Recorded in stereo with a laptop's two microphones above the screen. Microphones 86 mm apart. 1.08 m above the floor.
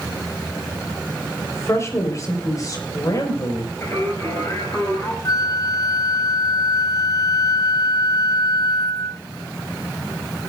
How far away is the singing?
About 6.5 m.